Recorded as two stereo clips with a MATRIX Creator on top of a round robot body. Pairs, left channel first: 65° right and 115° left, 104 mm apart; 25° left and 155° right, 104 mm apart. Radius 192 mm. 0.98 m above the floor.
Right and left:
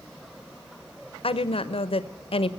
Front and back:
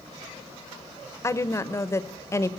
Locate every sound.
1.2 s a woman speaking: 40° right, 1.1 m